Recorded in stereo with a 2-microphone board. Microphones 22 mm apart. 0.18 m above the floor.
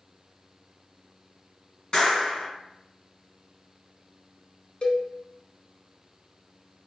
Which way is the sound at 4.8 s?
50° left (ahead or behind).